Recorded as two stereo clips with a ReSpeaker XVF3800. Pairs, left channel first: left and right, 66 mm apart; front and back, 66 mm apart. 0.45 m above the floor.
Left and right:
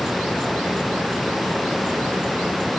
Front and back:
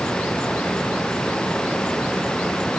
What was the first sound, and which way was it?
Only background noise.